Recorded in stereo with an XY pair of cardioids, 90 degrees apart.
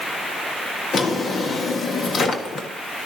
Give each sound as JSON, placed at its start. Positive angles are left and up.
{"t": 0.9, "sound": "a drawer", "azimuth_deg": 55, "distance_m": 1.4}